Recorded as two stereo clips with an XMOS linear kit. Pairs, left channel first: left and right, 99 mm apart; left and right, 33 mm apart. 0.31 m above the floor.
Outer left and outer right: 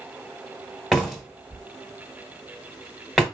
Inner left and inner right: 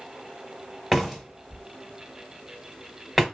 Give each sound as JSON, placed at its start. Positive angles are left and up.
{"t": 0.9, "sound": "a door slam", "side_deg": 0, "distance_m": 1.2}